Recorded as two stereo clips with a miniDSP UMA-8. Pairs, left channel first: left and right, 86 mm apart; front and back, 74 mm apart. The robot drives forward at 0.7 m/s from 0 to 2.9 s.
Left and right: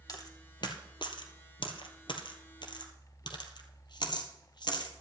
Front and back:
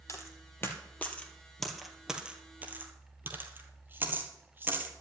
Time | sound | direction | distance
0.1 | a dropped coin | 50° left | 1.9 m